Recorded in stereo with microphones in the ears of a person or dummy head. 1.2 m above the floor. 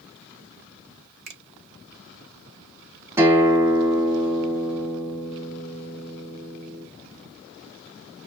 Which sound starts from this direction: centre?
A guitar, at 3.2 s.